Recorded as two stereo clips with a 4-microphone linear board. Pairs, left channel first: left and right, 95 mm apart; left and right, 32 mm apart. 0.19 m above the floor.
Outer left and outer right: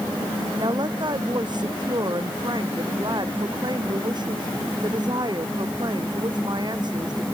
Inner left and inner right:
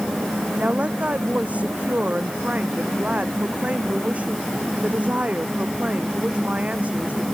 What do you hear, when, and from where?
0.6 s a woman speaking: 50° right (ahead or behind)